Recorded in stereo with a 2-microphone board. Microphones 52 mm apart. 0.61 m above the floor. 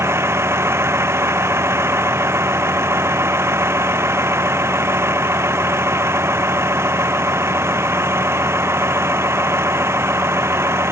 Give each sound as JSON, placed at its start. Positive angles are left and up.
{"t": 0.0, "sound": "a vehicle", "side_deg": -60}